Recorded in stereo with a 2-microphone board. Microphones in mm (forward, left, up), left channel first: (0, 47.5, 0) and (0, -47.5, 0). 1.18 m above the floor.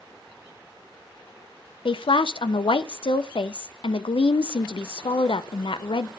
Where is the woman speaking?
65° left (ahead or behind), 0.5 m.